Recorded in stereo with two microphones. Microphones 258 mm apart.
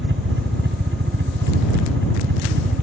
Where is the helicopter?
50° right (ahead or behind).